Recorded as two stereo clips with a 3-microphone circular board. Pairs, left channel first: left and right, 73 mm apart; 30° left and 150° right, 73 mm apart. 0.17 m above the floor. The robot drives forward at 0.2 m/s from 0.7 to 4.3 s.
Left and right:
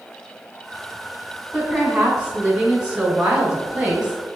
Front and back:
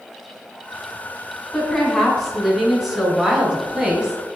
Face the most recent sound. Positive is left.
turn(degrees=-140)